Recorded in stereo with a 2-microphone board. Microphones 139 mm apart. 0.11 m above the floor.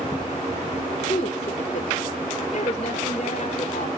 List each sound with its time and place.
1.1 s a woman speaking: 45° left (ahead or behind), 1.5 m